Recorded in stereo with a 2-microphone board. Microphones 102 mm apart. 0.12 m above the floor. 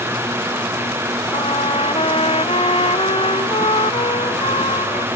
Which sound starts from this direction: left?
A trumpet, at 1.3 s.